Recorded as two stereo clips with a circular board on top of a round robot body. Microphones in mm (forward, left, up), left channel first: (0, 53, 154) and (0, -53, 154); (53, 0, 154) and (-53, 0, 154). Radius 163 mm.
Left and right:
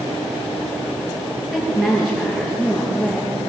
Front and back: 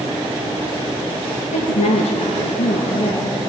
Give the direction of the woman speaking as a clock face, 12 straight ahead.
12 o'clock.